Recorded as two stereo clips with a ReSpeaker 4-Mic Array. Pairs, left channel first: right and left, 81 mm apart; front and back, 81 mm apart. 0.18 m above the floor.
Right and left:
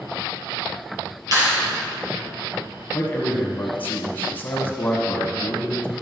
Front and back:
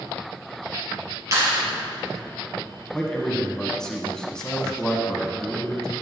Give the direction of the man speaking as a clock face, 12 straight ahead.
2 o'clock.